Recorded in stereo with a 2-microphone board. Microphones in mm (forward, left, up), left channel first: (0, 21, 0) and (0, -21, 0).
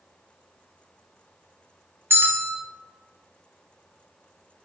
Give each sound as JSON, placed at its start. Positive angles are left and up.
{"t": 2.1, "sound": "a bell", "side_deg": -75, "distance_m": 0.5}